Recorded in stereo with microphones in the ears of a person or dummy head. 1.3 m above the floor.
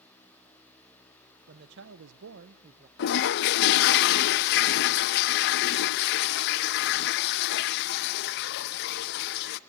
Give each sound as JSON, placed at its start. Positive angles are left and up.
{"t": 1.5, "sound": "a man speaking", "side_deg": -50, "distance_m": 1.6}
{"t": 3.0, "sound": "a toilet flushing", "side_deg": 55, "distance_m": 0.7}